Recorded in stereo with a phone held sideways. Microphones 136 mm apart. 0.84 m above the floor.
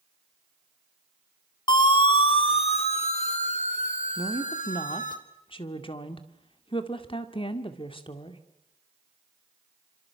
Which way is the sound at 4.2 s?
40° left (ahead or behind).